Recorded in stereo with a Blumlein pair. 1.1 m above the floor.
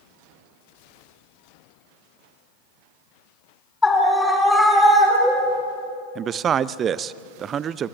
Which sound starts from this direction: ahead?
A scream, at 3.8 s.